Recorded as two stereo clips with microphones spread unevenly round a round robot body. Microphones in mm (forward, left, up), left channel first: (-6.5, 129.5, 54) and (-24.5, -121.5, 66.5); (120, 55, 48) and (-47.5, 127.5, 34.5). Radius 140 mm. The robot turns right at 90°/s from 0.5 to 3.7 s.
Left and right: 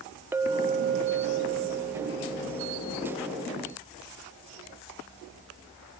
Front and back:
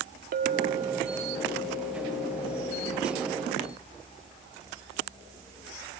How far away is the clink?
About 0.7 m.